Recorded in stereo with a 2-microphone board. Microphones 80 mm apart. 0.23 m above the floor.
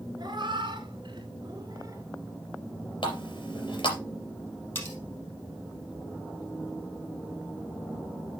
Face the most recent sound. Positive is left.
turn(degrees=25)  # may be behind; listen again after turning